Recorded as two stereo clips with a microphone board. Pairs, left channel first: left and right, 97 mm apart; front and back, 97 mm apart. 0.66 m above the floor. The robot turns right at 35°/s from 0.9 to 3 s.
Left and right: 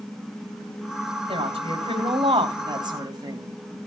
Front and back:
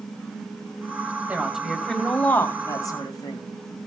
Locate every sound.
1.3 s a woman speaking: 105° right, 3.5 m; by 3.4 s 45° right, 3.5 m